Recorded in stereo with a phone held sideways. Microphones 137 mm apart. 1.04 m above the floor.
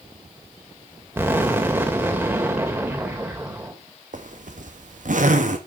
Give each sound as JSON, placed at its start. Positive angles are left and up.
{"t": 1.2, "sound": "an explosion", "side_deg": -15, "distance_m": 2.0}
{"t": 4.1, "sound": "a zipper", "side_deg": -70, "distance_m": 1.8}